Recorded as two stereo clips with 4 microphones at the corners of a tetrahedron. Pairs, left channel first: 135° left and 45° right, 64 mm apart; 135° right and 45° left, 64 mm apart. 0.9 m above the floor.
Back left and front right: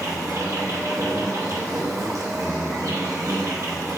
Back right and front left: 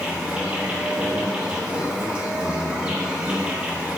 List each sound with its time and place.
0.0 s an insect: 25° right, 0.9 m